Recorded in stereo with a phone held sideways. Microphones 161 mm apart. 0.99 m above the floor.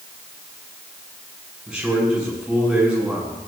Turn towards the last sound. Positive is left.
turn(degrees=-5)  # may be behind; listen again after turning